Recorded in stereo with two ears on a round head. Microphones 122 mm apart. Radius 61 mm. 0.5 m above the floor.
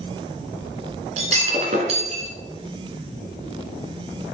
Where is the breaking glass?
50° right (ahead or behind), 1.8 m.